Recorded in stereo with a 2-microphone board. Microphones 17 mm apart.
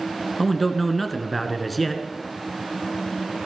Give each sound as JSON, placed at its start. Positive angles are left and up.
{"t": 0.4, "sound": "a man speaking", "side_deg": 0, "distance_m": 1.4}